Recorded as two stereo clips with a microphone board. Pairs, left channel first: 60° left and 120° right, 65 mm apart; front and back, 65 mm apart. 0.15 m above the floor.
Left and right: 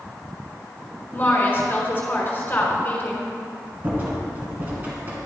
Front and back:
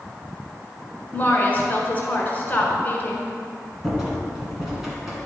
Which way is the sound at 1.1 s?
40° left.